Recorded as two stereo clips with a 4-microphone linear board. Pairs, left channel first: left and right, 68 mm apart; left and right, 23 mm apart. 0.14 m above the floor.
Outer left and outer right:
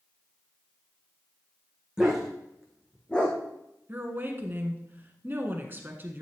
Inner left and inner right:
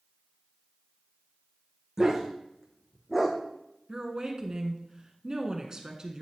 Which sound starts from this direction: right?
A woman speaking, at 3.9 s.